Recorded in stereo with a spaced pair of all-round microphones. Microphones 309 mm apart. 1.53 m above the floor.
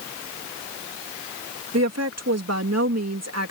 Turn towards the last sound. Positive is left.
turn(degrees=-55)  # may be behind; listen again after turning